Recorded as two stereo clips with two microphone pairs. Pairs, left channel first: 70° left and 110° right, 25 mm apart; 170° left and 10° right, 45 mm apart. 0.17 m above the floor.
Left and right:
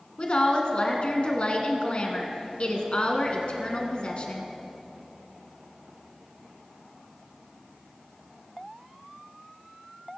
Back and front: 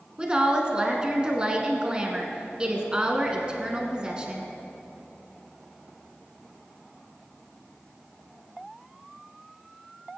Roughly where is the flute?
I don't hear a flute.